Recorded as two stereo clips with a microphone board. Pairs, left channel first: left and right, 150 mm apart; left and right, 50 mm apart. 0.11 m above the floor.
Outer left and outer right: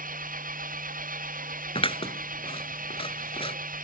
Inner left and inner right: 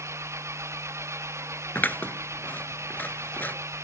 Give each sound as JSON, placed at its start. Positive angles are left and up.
{"t": 0.0, "sound": "an engine running", "side_deg": -60}
{"t": 1.8, "sound": "scissors", "side_deg": 35}